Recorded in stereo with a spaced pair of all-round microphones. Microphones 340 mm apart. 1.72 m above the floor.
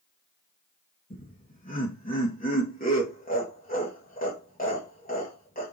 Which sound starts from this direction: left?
Laughter, at 1.1 s.